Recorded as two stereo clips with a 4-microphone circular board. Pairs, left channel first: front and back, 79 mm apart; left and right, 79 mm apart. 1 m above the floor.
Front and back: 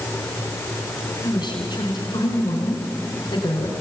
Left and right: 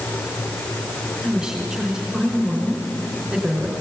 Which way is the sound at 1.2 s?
5° right.